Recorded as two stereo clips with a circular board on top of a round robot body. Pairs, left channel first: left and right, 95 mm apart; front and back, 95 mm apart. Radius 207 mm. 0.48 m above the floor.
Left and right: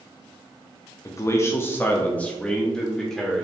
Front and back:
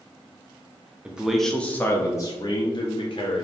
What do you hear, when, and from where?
1.1 s a man speaking: 110° left, 0.8 m; by 3.5 s straight ahead, 1.3 m